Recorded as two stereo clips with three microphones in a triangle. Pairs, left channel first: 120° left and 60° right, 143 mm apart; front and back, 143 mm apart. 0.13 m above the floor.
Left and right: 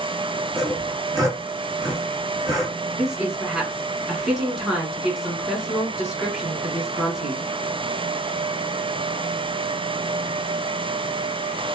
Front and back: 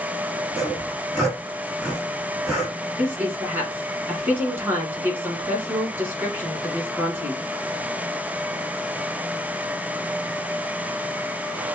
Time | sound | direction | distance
0.6 | sawing | 80° right | 1.7 m
3.0 | a woman speaking | 135° right | 1.5 m